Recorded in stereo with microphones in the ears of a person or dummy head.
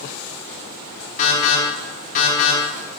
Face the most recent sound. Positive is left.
turn(degrees=45)  # may be behind; listen again after turning